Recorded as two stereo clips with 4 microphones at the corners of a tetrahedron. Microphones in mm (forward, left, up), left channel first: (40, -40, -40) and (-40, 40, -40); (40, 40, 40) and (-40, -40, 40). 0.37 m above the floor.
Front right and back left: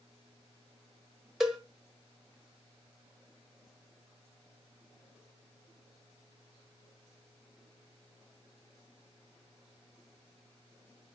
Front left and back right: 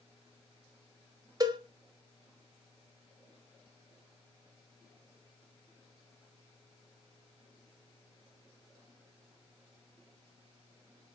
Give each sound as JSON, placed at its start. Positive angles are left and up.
{"t": 1.4, "sound": "a cowbell", "azimuth_deg": -145, "distance_m": 0.7}